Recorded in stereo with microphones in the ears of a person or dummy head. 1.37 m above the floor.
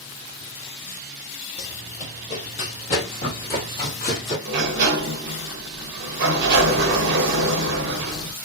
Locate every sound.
1.6 s running footsteps: 20° left (ahead or behind), 1.5 m; by 4.3 s 25° left (ahead or behind), 1.8 m
4.5 s a sliding door: 60° right (ahead or behind), 0.6 m